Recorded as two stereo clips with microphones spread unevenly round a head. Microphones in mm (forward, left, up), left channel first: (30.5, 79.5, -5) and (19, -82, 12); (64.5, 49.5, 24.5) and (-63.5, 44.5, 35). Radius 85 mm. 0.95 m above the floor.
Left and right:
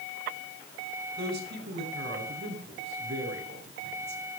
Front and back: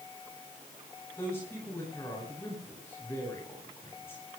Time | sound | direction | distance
1.2 | a man speaking | 75° right | 9 m